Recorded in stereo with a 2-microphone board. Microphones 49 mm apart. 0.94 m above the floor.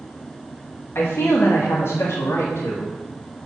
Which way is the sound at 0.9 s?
60° left (ahead or behind).